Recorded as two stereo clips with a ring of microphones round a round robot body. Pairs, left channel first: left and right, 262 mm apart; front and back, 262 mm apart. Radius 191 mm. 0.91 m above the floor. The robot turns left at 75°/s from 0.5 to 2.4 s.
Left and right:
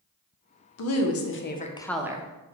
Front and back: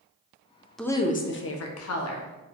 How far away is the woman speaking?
About 0.6 m.